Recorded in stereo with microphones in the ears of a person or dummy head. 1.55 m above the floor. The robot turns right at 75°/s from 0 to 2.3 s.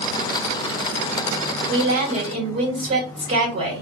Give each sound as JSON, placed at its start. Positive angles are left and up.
{"t": 1.7, "sound": "a woman speaking", "azimuth_deg": -80, "distance_m": 1.3}